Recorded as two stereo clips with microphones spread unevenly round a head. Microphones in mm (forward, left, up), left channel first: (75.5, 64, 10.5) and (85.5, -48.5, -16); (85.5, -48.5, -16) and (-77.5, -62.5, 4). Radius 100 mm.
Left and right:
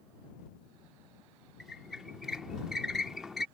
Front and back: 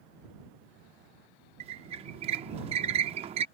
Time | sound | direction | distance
1.6 | a squeak | 170° left | ?